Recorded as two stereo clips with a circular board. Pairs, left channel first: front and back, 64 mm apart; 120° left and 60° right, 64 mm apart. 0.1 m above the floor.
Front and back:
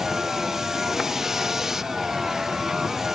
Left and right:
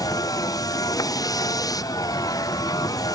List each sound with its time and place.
0.0 s a vehicle: 95° left